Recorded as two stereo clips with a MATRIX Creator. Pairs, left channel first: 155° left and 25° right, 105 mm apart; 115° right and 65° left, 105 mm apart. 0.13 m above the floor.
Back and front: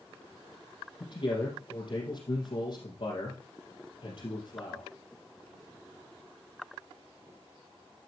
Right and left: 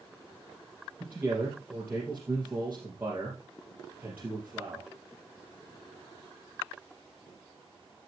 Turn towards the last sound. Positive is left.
turn(degrees=140)